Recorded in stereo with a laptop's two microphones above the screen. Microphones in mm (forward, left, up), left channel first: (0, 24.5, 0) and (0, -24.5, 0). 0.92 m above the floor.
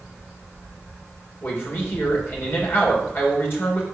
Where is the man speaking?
50° left (ahead or behind), 3 m.